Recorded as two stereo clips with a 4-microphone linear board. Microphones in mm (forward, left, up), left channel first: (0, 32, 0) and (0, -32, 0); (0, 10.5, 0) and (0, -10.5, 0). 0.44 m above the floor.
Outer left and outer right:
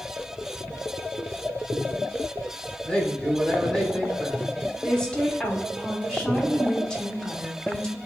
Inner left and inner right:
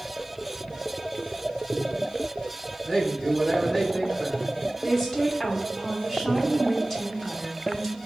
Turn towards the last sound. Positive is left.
turn(degrees=15)  # may be behind; listen again after turning